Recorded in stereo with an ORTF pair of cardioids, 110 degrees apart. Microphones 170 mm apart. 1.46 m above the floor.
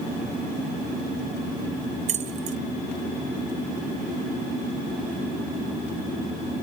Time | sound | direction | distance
2.1 | keys jangling | 45° right | 1.2 m